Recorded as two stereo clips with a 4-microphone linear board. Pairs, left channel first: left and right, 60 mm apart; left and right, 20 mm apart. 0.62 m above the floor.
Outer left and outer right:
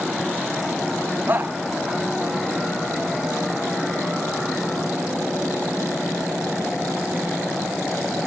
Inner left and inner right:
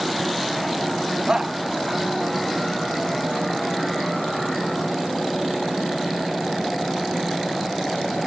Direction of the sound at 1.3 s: 35° right (ahead or behind).